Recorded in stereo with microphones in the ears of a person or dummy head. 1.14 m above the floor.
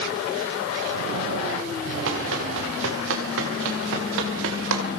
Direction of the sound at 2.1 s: 75° right (ahead or behind).